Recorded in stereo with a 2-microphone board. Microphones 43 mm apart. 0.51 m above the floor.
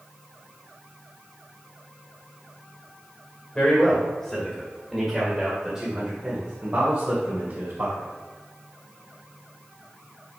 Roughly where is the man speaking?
Left.